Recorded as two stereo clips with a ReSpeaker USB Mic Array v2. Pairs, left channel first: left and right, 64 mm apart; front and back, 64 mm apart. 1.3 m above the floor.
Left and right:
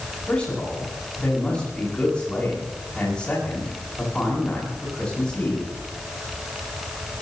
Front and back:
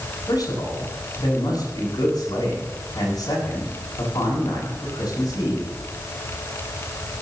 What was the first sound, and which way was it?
A man speaking, 15° left.